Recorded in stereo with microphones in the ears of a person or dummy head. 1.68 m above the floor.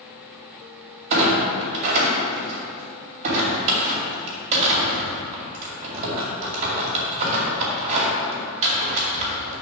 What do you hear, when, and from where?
1.1 s a clunk: 40° right (ahead or behind), 2.5 m